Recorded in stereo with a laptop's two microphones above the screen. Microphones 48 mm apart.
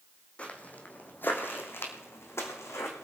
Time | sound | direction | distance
0.4 | footsteps | 25° left (ahead or behind) | 2.5 m